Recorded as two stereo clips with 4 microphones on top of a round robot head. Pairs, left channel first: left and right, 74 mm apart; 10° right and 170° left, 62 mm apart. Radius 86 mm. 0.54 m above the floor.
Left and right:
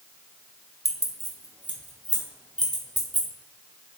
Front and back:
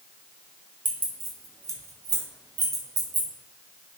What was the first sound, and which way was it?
Keys jangling, 130° right.